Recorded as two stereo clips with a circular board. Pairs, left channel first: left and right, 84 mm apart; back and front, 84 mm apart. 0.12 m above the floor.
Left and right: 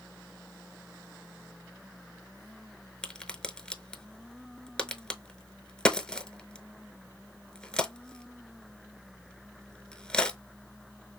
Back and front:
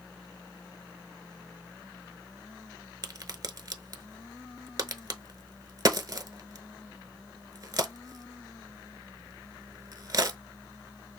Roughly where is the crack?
Ahead.